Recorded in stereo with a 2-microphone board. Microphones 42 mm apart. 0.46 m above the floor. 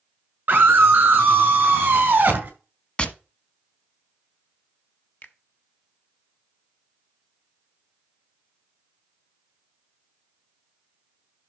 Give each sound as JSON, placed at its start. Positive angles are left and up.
{"t": 0.5, "sound": "a scream", "side_deg": -50, "distance_m": 5.5}
{"t": 3.0, "sound": "tapping", "side_deg": 25, "distance_m": 1.1}
{"t": 5.2, "sound": "a finger snap", "side_deg": 50, "distance_m": 1.3}